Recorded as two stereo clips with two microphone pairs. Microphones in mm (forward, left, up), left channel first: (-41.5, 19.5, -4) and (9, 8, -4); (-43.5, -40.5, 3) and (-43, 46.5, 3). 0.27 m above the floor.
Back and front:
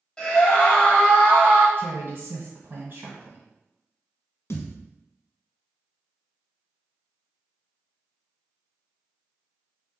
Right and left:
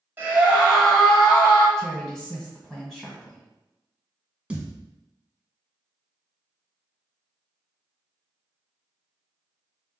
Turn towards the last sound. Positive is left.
turn(degrees=165)